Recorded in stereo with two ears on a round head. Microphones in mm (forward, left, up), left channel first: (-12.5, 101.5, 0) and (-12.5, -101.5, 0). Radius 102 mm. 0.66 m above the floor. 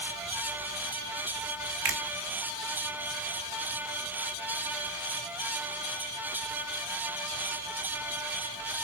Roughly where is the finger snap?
Right.